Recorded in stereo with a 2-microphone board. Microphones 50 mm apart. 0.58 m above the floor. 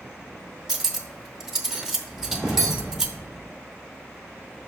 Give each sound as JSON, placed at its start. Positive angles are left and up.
{"t": 0.7, "sound": "cutlery clinking", "side_deg": -10, "distance_m": 0.8}
{"t": 2.1, "sound": "a whoosh", "side_deg": -15, "distance_m": 2.5}